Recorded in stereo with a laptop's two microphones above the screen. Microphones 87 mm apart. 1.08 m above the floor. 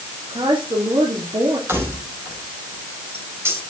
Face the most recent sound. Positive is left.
turn(degrees=-30)  # may be behind; listen again after turning